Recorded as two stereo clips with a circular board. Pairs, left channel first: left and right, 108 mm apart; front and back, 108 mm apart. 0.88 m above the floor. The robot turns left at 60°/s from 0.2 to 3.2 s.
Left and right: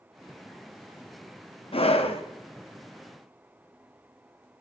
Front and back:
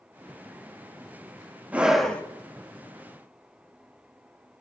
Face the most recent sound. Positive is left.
turn(degrees=20)